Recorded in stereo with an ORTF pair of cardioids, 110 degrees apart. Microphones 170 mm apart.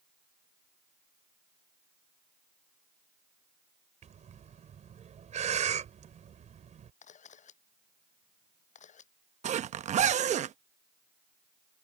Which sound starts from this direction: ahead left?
A camera shutter, at 7.0 s.